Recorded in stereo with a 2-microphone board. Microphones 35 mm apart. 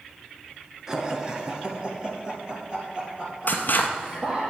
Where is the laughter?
15° right (ahead or behind), 1.4 m; by 4.5 s 25° right (ahead or behind), 4.5 m.